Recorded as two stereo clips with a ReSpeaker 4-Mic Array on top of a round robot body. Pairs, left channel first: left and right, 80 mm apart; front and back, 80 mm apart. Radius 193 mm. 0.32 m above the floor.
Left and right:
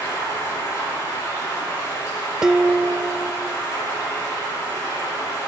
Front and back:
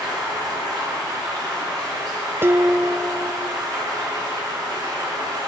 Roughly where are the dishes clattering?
Behind.